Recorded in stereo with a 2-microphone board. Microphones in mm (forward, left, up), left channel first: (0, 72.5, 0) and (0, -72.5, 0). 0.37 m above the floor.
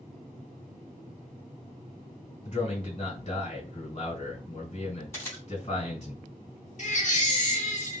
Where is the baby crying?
55° left (ahead or behind), 0.8 m.